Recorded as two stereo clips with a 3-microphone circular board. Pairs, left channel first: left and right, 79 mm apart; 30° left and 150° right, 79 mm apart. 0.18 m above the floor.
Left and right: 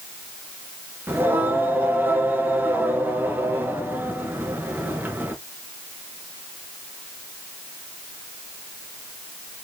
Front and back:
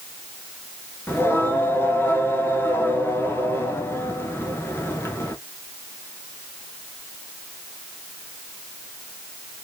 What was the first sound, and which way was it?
Singing, 25° right.